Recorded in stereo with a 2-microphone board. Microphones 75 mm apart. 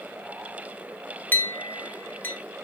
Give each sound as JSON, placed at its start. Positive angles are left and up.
{"t": 1.3, "sound": "a clink", "side_deg": 25, "distance_m": 0.8}